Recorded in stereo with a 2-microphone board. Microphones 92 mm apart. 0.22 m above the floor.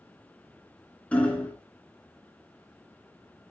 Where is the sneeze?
No sneeze in this recording.